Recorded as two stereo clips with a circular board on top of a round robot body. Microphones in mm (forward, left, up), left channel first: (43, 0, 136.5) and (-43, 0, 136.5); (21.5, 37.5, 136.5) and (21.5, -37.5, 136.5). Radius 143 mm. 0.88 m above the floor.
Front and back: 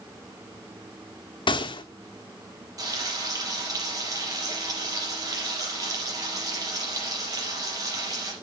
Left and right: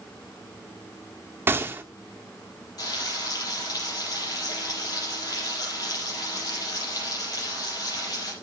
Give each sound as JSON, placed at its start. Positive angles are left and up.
{"t": 1.5, "sound": "a gunshot", "azimuth_deg": -30, "distance_m": 1.2}
{"t": 2.8, "sound": "frying", "azimuth_deg": 130, "distance_m": 6.0}